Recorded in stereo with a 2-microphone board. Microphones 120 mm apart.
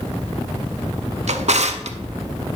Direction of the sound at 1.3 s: 65° right (ahead or behind).